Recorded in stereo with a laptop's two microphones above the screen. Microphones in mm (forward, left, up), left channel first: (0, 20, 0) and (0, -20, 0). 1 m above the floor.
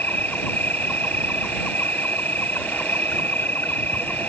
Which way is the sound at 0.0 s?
55° left (ahead or behind).